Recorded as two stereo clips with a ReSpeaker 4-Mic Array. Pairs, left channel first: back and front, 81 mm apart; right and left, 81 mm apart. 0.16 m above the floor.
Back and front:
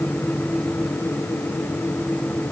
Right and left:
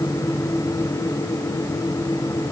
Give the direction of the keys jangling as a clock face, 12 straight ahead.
No keys jangling in this recording.